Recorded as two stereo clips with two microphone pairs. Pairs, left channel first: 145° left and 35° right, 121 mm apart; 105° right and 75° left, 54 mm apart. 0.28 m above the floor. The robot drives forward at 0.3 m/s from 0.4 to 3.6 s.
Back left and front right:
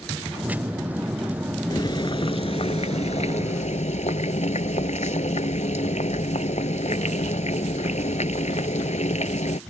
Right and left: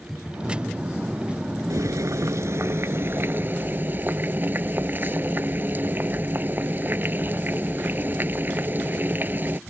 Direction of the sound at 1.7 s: 85° left.